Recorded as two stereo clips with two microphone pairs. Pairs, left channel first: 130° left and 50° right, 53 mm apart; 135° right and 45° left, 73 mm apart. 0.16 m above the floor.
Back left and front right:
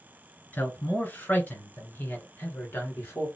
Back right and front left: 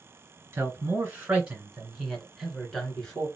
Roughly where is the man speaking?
Left.